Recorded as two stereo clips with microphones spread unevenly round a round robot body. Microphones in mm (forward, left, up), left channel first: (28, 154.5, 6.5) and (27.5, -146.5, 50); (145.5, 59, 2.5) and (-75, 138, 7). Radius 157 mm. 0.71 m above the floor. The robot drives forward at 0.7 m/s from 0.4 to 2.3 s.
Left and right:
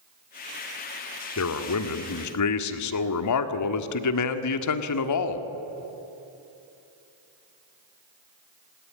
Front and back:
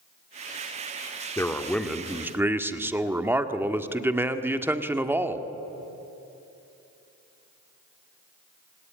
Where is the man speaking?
55° left, 1.9 m; by 5.5 s 80° left, 1.6 m.